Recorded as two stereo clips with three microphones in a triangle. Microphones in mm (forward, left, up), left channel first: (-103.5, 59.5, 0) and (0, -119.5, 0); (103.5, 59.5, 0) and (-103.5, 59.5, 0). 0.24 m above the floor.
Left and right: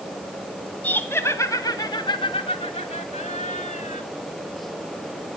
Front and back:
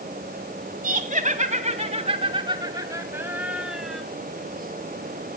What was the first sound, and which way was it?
Laughter, 160° right.